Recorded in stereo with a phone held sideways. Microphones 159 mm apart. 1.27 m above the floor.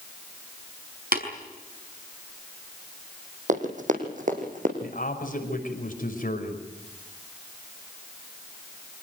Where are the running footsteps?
50° right (ahead or behind), 3.5 m; by 4.7 s 55° right (ahead or behind), 5 m.